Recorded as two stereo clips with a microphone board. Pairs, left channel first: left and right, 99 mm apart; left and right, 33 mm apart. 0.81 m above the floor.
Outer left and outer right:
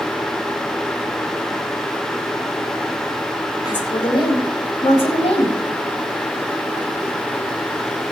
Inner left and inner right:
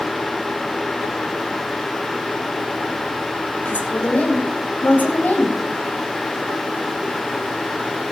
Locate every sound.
3.6 s a woman speaking: 50° left (ahead or behind), 3 m; by 5.5 s 75° left (ahead or behind), 4.5 m